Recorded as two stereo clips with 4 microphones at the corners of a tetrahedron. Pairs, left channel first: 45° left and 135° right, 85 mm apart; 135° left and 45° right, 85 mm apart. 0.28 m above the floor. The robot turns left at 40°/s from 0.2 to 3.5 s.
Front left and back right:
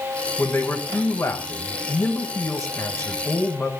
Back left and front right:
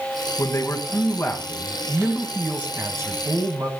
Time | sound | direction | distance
0.4 | a man speaking | 105° left | 1.6 m